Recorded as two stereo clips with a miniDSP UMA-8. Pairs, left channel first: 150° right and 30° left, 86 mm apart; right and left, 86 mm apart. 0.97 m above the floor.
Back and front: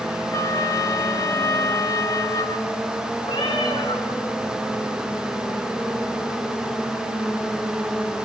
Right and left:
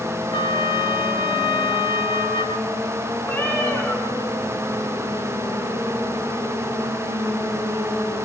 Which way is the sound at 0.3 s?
100° right.